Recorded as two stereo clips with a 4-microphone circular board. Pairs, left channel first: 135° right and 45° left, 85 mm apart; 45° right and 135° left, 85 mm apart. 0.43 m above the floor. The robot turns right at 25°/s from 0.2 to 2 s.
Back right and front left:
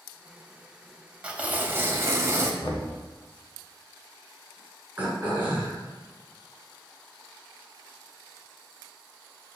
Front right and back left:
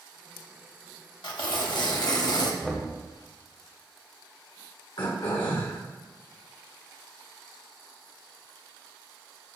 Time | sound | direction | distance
1.2 | tearing paper | 30° right | 0.8 m
2.6 | knocking | 125° right | 1.3 m
5.0 | throat clearing | 25° right | 1.6 m